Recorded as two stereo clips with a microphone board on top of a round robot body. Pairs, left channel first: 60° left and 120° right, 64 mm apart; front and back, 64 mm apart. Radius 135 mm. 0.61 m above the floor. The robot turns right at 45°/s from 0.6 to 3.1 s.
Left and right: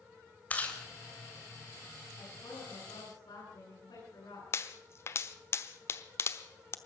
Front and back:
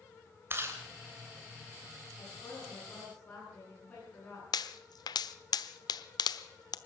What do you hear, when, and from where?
0.5 s chewing: 125° left, 3 m; by 0.8 s 135° left, 3 m
2.2 s a woman speaking: 25° left, 9 m; by 4.4 s 65° left, 9 m
4.5 s a pop: 10° left, 1.0 m